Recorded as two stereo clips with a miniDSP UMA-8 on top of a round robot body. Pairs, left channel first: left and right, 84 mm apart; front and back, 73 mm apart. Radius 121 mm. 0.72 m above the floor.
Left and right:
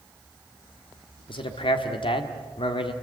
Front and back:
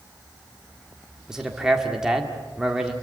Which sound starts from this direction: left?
A man speaking, at 1.3 s.